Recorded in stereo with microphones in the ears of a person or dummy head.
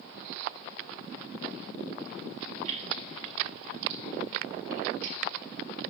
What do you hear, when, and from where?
2.6 s keys jangling: 45° right (ahead or behind), 3 m; by 5.2 s 55° right (ahead or behind), 1.7 m